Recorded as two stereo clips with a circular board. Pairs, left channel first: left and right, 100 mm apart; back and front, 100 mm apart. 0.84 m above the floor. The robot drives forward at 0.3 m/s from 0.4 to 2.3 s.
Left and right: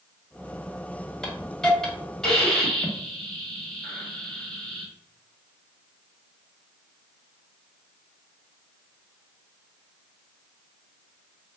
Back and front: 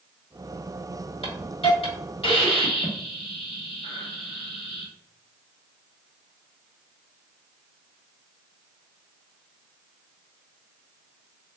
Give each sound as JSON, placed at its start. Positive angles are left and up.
{"t": 1.2, "sound": "a hiss", "azimuth_deg": 175, "distance_m": 1.0}